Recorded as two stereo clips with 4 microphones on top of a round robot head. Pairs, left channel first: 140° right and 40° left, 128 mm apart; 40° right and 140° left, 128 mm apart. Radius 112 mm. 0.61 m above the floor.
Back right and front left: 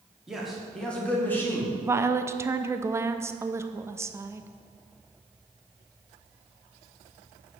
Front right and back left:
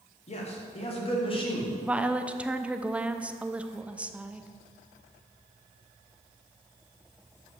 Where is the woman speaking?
70° left, 0.6 m.